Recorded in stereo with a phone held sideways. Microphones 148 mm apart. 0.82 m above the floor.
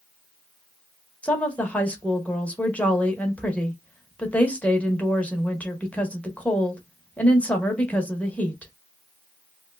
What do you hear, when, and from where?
1.2 s a woman speaking: 10° left (ahead or behind), 0.9 m